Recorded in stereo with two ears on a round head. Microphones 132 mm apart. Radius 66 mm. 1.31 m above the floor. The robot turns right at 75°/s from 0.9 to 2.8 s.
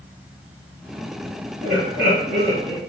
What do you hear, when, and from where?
1.6 s laughter: 115° right, 2 m; by 2.8 s 25° right, 2 m